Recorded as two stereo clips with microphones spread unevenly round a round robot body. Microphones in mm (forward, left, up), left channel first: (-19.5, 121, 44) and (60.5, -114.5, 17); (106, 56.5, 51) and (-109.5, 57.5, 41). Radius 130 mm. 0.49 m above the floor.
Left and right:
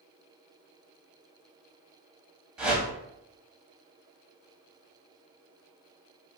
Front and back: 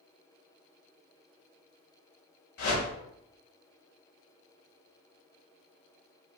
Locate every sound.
2.6 s a whoosh: 15° left, 0.8 m